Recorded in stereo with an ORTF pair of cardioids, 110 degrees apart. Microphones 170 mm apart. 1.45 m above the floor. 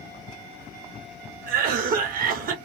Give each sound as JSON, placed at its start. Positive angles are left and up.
{"t": 1.5, "sound": "a cough", "azimuth_deg": -55, "distance_m": 1.0}